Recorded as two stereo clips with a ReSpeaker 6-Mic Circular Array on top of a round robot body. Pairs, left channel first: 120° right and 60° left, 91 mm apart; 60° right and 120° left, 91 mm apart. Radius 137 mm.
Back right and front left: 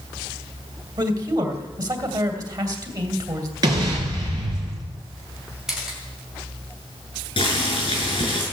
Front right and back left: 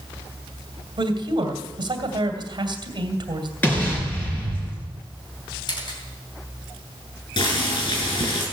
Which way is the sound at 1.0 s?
95° left.